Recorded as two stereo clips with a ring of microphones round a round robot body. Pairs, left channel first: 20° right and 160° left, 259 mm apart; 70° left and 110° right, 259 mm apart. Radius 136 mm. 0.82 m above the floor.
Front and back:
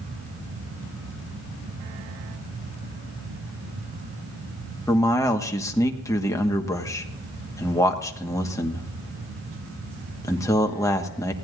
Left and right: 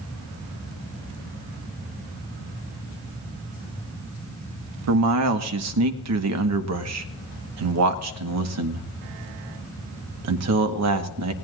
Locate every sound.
4.9 s a man speaking: 100° right, 1.2 m